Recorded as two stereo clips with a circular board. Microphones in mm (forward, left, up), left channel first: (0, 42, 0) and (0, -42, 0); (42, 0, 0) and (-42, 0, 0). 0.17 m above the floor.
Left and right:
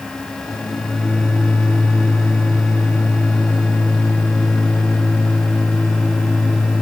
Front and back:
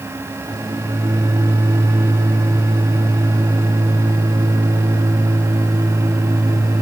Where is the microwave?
140° left, 5 m.